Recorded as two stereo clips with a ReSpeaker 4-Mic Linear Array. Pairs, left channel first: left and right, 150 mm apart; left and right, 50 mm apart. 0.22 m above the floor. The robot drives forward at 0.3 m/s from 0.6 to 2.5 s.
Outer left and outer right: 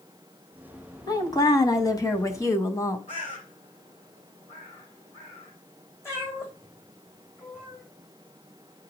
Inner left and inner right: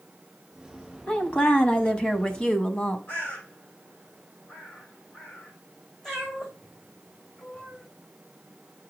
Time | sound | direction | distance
1.1 | a woman speaking | 25° left (ahead or behind) | 1.1 m
3.1 | a bird | 55° left (ahead or behind) | 3.5 m
6.0 | a cat meowing | 20° left (ahead or behind) | 4 m